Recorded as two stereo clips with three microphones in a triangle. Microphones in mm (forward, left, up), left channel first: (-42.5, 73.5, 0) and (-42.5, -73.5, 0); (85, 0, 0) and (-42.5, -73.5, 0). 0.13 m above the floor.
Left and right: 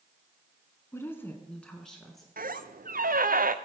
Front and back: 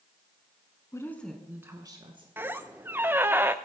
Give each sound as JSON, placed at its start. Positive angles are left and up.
{"t": 0.9, "sound": "a woman speaking", "azimuth_deg": 50, "distance_m": 1.1}
{"t": 2.4, "sound": "a squeak", "azimuth_deg": -75, "distance_m": 0.7}